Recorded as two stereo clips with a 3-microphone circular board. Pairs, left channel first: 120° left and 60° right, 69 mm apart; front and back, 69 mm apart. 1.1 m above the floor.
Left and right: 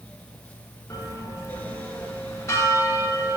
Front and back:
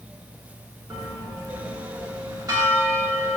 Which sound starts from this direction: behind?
A bell, at 0.9 s.